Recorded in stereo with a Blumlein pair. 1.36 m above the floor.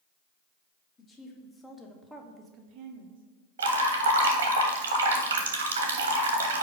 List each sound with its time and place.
1.0 s a woman speaking: 25° left, 1.5 m; by 3.2 s 70° right, 0.8 m
3.6 s dripping: 65° right, 1.0 m